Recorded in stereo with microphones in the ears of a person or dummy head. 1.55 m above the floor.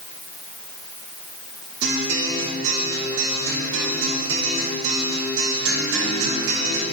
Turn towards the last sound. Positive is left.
turn(degrees=-80)